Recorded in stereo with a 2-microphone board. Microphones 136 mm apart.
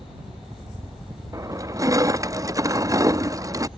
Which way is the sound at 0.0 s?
25° right (ahead or behind).